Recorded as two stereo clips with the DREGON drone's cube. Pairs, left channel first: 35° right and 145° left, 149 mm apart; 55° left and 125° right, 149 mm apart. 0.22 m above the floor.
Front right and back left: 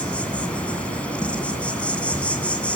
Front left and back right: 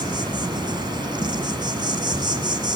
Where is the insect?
110° right, 1.9 m.